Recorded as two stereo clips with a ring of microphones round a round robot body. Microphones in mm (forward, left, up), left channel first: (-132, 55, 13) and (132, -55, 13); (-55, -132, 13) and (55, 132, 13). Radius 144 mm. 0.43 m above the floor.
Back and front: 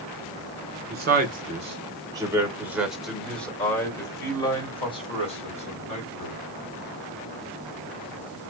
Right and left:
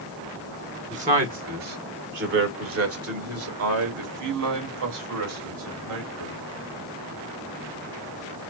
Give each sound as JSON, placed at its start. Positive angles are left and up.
{"t": 0.9, "sound": "a man speaking", "azimuth_deg": 15, "distance_m": 1.7}